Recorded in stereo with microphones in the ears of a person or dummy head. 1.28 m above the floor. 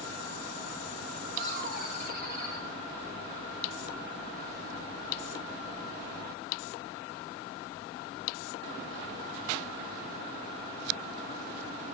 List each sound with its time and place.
1.4 s laughter: 50° right (ahead or behind), 9.5 m